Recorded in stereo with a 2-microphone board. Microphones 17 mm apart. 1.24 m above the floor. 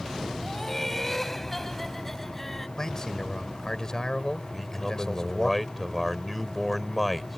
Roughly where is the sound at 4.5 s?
Centre.